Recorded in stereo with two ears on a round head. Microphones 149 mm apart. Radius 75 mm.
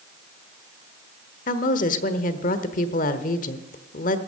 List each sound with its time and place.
1.5 s a woman speaking: 50° left (ahead or behind), 1.1 m